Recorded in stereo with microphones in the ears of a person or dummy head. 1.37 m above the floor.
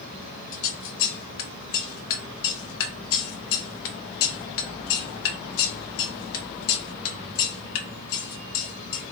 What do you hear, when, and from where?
0.5 s scissors: 70° left (ahead or behind), 0.9 m